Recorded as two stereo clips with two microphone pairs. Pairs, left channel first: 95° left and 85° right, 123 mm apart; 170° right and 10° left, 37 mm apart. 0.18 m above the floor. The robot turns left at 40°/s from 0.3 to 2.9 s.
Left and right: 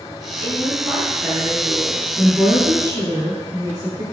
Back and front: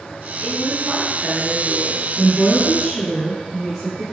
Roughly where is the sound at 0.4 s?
Ahead.